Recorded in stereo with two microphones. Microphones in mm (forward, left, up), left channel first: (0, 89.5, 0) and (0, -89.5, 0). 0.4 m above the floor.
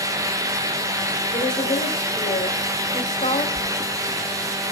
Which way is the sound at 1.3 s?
45° left (ahead or behind).